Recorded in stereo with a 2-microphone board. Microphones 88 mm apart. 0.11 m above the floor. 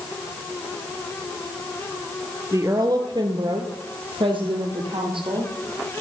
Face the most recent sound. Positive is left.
turn(degrees=-65)  # may be behind; listen again after turning